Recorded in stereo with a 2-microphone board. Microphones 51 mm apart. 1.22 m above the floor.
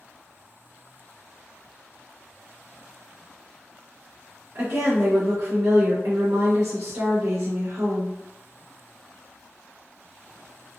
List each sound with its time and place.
4.5 s a woman speaking: 60° right (ahead or behind), 0.9 m